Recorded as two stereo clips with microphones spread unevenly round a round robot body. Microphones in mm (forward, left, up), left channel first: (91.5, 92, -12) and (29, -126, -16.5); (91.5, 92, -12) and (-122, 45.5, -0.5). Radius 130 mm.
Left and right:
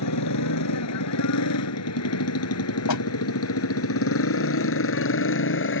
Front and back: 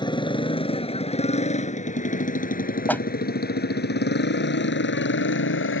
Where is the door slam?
95° left.